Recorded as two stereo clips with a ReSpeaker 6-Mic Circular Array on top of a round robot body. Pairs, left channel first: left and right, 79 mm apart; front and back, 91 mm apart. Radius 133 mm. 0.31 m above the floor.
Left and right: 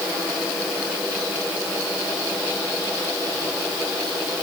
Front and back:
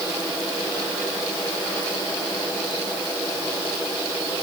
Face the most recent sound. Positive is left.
No sound to turn to.